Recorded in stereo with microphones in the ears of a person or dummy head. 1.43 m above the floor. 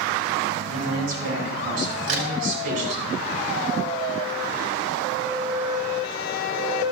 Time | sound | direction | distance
0.7 | a man speaking | 50° right (ahead or behind) | 5 m
2.1 | a crack | 50° right (ahead or behind) | 2.5 m